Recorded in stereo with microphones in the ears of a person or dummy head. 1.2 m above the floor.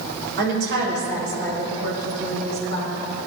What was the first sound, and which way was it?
A woman speaking, 70° right (ahead or behind).